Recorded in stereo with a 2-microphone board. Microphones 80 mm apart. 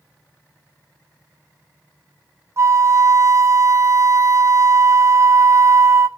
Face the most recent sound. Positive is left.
turn(degrees=-40)  # may be behind; listen again after turning